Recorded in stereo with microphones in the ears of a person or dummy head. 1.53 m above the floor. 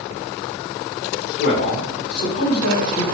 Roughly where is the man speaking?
Left.